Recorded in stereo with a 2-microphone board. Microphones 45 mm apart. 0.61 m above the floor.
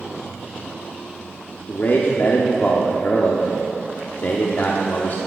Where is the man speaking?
45° left (ahead or behind), 1.1 m.